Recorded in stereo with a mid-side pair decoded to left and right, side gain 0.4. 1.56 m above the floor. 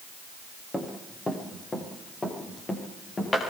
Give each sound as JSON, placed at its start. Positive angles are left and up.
{"t": 0.7, "sound": "running footsteps", "azimuth_deg": 20, "distance_m": 7.5}